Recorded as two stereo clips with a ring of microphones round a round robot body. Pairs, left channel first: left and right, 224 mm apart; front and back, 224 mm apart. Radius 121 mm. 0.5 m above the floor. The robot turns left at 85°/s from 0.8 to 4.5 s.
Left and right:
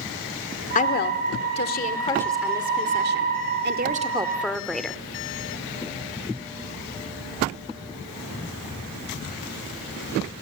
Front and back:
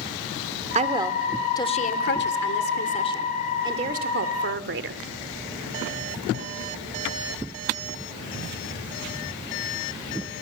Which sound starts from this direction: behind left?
A woman speaking, at 0.8 s.